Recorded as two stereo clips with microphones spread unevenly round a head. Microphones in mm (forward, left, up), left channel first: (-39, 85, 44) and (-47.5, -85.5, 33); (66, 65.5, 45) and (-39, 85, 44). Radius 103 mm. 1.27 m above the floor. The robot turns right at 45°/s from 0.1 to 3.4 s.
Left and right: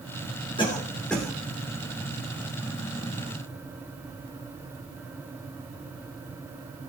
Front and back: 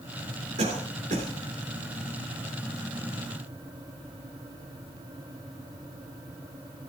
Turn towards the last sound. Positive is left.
turn(degrees=-85)